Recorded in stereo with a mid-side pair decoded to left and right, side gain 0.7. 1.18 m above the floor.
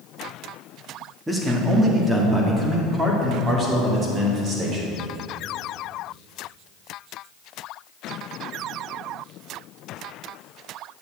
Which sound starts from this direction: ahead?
A man speaking, at 1.3 s.